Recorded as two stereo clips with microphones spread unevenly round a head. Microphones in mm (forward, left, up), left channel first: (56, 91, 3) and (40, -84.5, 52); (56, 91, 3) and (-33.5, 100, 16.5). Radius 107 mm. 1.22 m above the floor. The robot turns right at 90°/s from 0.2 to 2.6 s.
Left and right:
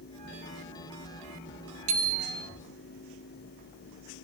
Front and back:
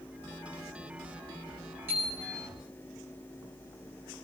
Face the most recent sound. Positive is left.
turn(degrees=-40)